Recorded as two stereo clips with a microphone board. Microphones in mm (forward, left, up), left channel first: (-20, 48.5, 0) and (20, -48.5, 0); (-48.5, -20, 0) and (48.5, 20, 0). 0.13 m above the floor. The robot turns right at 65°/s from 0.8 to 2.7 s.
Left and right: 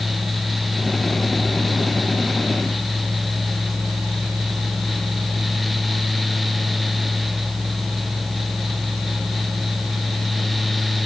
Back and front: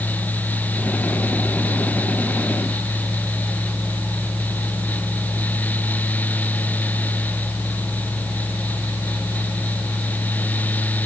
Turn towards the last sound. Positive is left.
No sound to turn to.